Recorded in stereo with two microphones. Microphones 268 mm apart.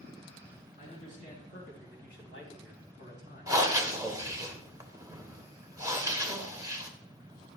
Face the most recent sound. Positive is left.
turn(degrees=-15)  # may be behind; listen again after turning